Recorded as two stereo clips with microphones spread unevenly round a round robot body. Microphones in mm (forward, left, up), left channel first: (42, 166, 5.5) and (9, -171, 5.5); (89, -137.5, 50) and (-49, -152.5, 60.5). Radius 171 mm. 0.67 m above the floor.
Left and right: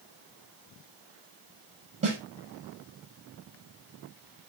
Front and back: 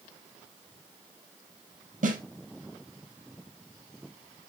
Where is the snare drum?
165° right, 4 m.